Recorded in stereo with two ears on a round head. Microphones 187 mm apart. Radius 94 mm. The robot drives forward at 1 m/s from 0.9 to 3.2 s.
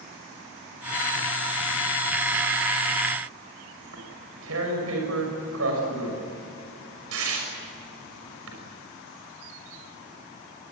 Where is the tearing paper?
75° right (ahead or behind), 6 m.